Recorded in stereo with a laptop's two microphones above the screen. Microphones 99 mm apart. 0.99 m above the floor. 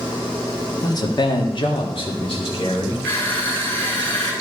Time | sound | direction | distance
0.8 | a man speaking | 40° left (ahead or behind) | 1.5 m
3.0 | crushing | 20° left (ahead or behind) | 4 m